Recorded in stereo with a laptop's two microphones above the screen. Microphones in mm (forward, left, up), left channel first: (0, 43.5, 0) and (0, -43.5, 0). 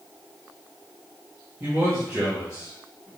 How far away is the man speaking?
About 1.9 m.